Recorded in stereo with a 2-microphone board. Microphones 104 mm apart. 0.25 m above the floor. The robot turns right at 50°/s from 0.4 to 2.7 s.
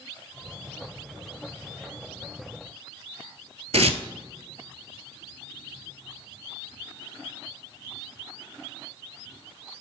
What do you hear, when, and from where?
3.7 s tearing paper: 80° right, 0.7 m